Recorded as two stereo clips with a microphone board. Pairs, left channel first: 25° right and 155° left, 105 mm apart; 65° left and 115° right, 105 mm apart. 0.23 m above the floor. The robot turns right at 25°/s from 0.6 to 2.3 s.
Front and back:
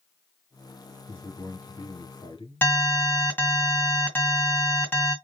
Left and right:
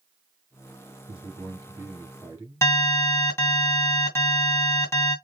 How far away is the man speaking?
About 3.5 m.